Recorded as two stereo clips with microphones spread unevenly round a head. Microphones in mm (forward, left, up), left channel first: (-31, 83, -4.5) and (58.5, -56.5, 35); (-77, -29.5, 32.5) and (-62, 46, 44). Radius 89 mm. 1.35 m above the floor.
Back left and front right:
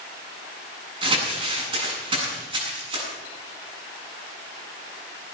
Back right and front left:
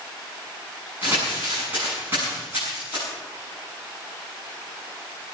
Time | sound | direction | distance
1.0 | crumpling | straight ahead | 8 m